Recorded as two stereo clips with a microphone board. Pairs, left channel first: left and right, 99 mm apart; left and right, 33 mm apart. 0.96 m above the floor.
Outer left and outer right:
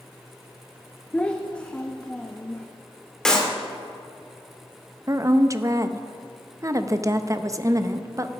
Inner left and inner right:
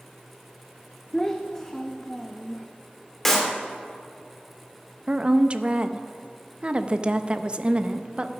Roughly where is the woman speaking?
Right.